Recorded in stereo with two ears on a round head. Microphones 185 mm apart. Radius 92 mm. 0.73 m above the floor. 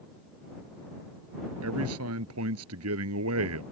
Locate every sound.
1.6 s a man speaking: 85° right